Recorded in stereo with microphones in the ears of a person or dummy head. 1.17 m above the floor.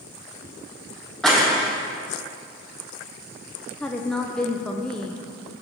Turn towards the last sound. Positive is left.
turn(degrees=5)  # may be behind; listen again after turning